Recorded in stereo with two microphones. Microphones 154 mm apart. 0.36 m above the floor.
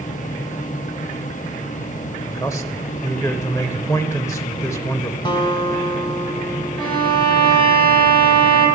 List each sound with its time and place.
2.3 s a man speaking: 20° left (ahead or behind), 1.2 m
5.2 s a guitar: 30° left (ahead or behind), 1.4 m
6.8 s a violin: 30° left (ahead or behind), 7 m